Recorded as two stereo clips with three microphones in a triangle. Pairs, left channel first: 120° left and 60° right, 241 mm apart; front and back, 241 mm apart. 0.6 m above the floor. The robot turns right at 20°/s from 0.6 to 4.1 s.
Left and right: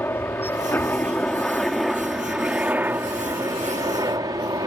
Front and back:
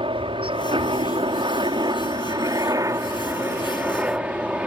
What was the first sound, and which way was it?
A helicopter, 175° right.